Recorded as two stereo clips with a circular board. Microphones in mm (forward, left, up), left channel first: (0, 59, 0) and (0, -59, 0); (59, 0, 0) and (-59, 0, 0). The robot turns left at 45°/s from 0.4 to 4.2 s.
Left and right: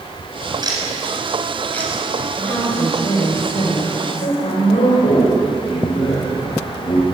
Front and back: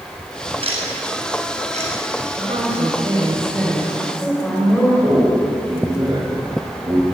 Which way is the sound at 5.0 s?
120° left.